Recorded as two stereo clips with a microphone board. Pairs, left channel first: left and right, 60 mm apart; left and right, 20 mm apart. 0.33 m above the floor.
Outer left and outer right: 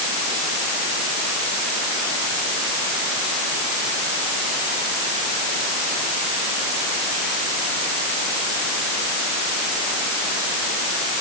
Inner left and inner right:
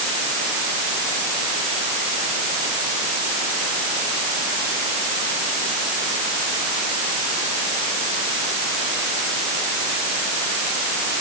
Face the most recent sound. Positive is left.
No sound to turn to.